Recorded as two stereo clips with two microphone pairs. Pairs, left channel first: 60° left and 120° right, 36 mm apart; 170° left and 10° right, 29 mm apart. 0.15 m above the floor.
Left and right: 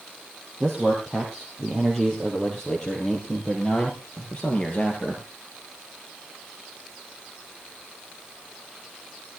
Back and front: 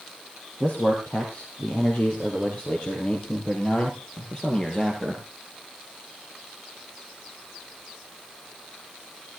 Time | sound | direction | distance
0.6 | a man speaking | 155° left | 3.5 m